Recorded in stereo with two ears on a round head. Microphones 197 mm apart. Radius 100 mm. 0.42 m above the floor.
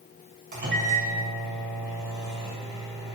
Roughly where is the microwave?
Right.